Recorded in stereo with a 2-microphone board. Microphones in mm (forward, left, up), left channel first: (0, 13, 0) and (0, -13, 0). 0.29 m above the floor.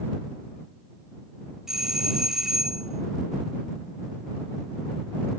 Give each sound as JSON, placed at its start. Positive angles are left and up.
{"t": 1.7, "sound": "a doorbell", "side_deg": -20}